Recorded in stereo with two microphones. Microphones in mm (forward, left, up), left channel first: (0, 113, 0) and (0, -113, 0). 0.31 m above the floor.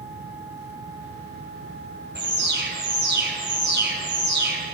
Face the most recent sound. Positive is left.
turn(degrees=-50)  # may be behind; listen again after turning